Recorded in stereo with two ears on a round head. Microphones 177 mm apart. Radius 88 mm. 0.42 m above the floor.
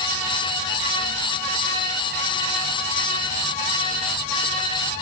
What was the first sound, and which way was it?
Only background noise.